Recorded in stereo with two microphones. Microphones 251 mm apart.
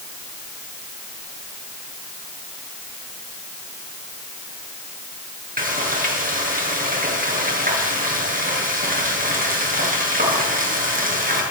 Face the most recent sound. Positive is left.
turn(degrees=-35)  # may be behind; listen again after turning